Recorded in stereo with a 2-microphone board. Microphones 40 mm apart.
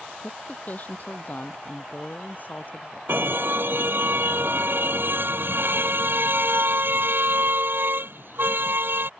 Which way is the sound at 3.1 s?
60° right (ahead or behind).